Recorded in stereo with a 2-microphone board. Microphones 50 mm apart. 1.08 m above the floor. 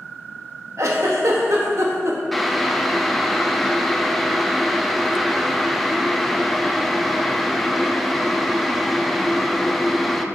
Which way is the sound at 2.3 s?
5° left (ahead or behind).